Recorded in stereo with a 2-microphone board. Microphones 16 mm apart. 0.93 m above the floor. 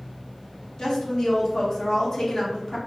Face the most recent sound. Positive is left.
turn(degrees=40)  # may be behind; listen again after turning